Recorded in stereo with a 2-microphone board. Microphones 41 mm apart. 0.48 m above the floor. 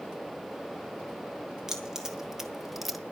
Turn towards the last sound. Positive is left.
turn(degrees=0)  # may be behind; listen again after turning